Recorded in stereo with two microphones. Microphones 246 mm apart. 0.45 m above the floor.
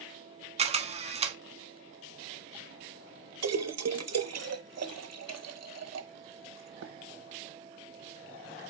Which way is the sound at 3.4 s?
75° right (ahead or behind).